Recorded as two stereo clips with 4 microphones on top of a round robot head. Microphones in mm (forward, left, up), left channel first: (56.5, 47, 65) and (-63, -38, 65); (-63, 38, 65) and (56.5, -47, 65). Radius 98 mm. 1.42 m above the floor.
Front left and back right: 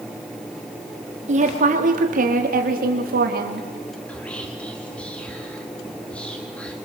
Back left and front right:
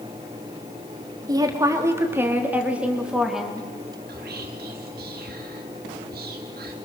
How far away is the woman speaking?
About 3 m.